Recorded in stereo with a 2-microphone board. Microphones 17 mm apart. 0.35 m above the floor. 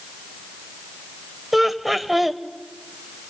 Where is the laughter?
15° right (ahead or behind), 1.2 m.